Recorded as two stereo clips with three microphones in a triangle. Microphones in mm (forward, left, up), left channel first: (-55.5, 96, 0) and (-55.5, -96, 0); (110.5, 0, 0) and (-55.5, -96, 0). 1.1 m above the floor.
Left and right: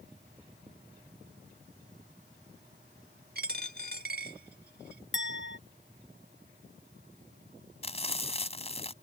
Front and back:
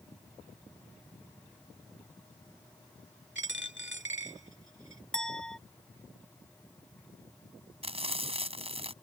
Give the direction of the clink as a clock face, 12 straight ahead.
8 o'clock.